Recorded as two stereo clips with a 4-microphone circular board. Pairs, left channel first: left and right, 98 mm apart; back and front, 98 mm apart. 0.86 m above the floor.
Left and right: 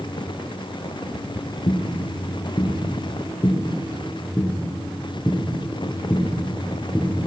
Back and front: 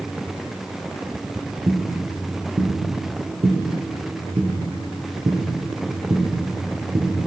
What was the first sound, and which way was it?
Footsteps, 55° left.